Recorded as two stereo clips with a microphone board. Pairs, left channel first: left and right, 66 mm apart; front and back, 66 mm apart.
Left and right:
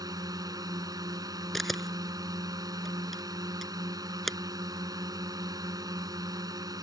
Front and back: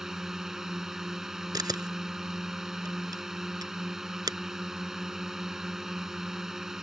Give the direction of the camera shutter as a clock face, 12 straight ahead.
6 o'clock.